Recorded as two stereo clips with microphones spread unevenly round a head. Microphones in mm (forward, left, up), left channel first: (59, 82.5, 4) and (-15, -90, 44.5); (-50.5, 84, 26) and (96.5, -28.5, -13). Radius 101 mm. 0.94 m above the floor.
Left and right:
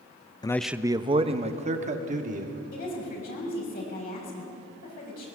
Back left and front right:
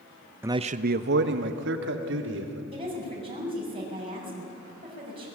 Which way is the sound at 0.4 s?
25° left.